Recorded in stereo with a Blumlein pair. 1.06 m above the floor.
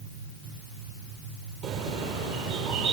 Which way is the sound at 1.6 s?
35° right.